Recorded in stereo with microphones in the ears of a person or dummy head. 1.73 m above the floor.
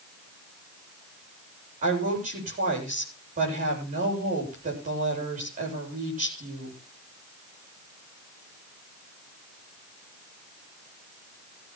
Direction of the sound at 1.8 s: 40° right (ahead or behind).